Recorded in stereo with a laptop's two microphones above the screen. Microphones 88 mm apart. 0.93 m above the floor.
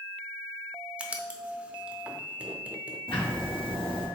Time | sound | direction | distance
1.0 | writing | 15° right (ahead or behind) | 0.6 m
3.1 | ticking | 75° left (ahead or behind) | 1.2 m